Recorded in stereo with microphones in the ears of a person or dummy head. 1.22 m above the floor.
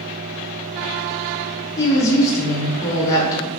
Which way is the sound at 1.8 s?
10° left (ahead or behind).